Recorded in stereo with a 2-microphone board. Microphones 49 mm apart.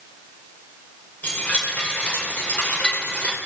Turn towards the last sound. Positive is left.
turn(degrees=30)  # may be behind; listen again after turning